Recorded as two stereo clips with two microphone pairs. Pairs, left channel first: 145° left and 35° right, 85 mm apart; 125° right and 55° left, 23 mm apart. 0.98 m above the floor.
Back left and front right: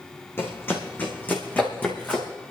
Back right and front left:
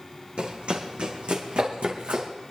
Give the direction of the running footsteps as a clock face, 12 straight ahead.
9 o'clock.